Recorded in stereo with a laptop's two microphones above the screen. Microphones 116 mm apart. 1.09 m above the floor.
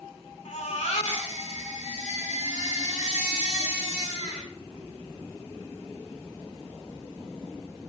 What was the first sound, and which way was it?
A baby crying, 85° left.